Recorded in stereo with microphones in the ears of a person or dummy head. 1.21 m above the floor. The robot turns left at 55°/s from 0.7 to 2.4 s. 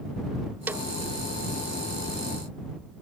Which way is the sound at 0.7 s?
15° right (ahead or behind).